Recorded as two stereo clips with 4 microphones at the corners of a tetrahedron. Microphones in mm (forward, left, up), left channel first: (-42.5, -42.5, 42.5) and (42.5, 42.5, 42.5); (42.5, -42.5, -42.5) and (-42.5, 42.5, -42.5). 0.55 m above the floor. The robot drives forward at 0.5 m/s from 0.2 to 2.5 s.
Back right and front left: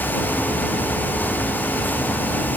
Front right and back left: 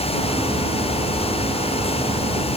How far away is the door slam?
I don't hear a door slam.